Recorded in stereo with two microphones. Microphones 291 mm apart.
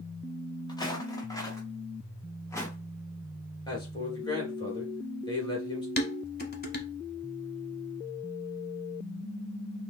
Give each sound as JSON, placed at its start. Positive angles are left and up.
{"t": 0.7, "sound": "footsteps", "side_deg": 15, "distance_m": 1.7}
{"t": 3.7, "sound": "a man speaking", "side_deg": 15, "distance_m": 3.0}
{"t": 6.0, "sound": "dishes clattering", "side_deg": 35, "distance_m": 1.0}